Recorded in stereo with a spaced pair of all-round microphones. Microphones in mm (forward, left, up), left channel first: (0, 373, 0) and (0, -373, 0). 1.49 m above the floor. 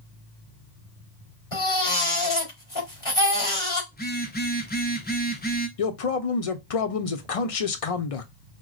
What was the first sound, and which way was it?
A baby crying, 40° left (ahead or behind).